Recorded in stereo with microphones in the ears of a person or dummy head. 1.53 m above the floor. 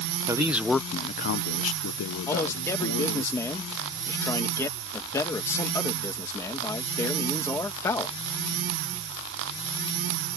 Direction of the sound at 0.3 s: 20° right (ahead or behind).